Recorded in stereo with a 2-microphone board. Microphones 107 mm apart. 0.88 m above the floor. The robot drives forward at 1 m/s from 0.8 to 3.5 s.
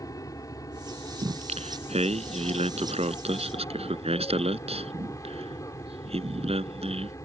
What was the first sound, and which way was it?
An aircraft, 35° left (ahead or behind).